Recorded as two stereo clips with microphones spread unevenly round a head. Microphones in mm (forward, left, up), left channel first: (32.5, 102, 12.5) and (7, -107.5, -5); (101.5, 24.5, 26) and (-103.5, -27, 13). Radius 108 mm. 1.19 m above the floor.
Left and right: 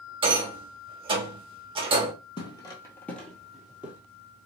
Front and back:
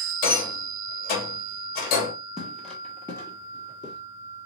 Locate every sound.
0.2 s a rattle: 30° right, 0.9 m
2.4 s footsteps: 100° left, 1.3 m; by 4.0 s 15° right, 1.3 m